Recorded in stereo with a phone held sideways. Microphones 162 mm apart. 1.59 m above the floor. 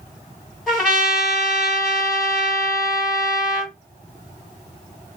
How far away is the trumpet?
About 3 m.